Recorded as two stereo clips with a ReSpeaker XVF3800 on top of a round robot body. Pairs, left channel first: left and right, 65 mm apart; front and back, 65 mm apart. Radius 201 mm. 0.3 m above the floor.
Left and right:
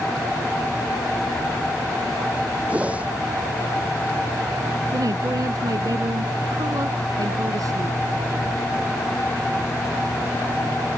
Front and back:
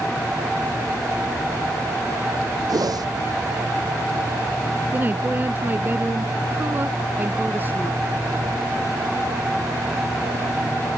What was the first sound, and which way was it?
A whoosh, 160° right.